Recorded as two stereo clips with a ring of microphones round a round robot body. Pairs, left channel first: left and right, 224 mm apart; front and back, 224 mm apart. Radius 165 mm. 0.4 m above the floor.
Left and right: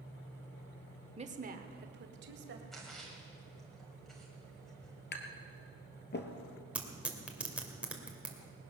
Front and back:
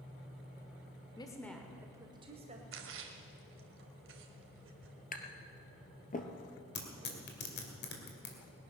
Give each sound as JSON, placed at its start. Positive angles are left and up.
{"t": 1.2, "sound": "a woman speaking", "azimuth_deg": -55, "distance_m": 1.1}
{"t": 2.7, "sound": "a splash", "azimuth_deg": 180, "distance_m": 1.6}
{"t": 5.1, "sound": "tapping", "azimuth_deg": 50, "distance_m": 1.8}
{"t": 6.8, "sound": "tearing paper", "azimuth_deg": -5, "distance_m": 2.5}